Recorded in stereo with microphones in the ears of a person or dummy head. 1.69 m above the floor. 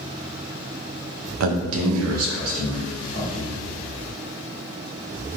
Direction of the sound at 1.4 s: 75° right (ahead or behind).